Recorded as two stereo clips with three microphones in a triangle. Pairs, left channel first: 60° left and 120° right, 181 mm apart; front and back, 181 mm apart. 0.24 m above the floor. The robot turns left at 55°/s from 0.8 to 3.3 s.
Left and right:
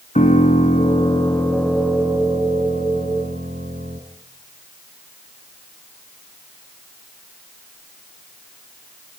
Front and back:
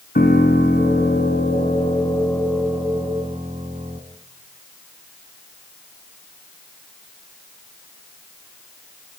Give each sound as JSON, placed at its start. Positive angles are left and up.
{"t": 0.1, "sound": "a piano", "azimuth_deg": 15, "distance_m": 2.5}